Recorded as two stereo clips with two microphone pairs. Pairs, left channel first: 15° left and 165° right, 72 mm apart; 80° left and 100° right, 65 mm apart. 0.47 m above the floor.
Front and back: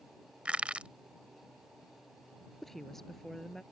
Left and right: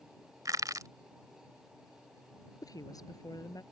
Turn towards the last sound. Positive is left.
turn(degrees=100)